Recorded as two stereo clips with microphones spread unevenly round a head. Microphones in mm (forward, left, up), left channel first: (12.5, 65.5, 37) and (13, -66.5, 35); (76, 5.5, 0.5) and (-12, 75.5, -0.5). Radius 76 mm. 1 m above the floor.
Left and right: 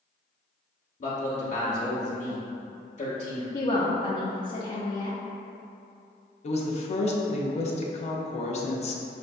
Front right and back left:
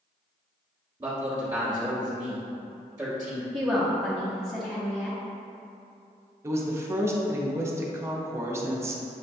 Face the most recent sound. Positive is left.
turn(degrees=80)